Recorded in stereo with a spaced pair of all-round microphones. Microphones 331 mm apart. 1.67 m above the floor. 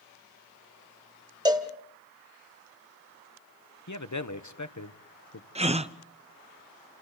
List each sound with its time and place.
1.4 s a cowbell: 10° right (ahead or behind), 1.5 m
3.9 s a man speaking: 60° left (ahead or behind), 1.1 m
5.5 s a gasp: 20° right (ahead or behind), 0.6 m